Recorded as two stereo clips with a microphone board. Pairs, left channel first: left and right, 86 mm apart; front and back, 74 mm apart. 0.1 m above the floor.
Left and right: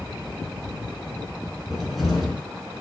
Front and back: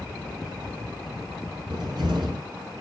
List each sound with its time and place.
1.7 s a cupboard door: straight behind, 5 m